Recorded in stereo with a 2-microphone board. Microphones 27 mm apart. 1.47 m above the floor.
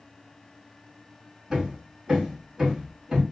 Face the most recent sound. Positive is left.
turn(degrees=-20)  # may be behind; listen again after turning